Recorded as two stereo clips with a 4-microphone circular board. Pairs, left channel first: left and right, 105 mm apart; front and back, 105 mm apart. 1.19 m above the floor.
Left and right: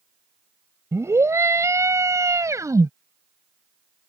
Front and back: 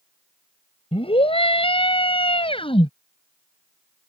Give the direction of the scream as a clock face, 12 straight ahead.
1 o'clock.